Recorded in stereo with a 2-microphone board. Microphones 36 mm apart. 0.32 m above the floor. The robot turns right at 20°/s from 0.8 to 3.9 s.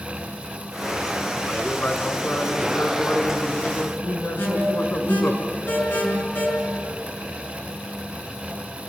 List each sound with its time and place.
1.5 s a man speaking: 40° left, 3.5 m; by 5.4 s 90° left, 3.5 m
4.4 s an alarm: 65° left (ahead or behind), 6.5 m